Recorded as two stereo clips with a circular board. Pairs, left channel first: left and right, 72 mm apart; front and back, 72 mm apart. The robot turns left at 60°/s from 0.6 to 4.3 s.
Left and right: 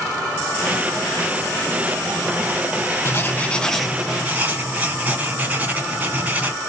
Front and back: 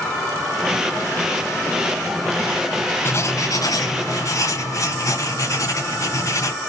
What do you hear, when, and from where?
3.0 s writing: 50° left, 2 m; by 6.5 s 25° right, 2 m